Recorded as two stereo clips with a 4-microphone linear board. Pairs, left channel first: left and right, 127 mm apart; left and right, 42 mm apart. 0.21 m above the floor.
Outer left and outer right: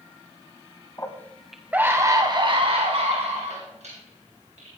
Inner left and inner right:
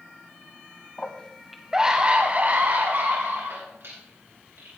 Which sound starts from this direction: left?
A scream, at 1.0 s.